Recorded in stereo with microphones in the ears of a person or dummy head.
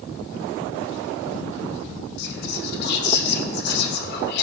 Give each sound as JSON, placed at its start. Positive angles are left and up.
{"t": 2.2, "sound": "whispering", "side_deg": 60, "distance_m": 2.0}